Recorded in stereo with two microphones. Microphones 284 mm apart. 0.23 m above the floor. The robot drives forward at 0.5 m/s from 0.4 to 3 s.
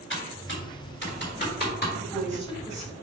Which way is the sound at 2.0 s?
20° left (ahead or behind).